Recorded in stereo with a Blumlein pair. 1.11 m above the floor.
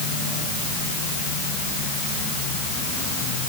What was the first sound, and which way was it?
Only background noise.